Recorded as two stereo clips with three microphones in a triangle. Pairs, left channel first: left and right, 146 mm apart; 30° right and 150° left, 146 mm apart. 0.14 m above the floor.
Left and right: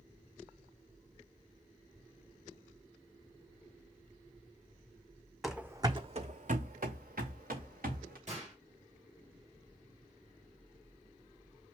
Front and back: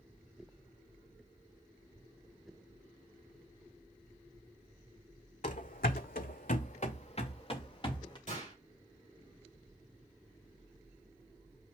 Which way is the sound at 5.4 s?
Straight ahead.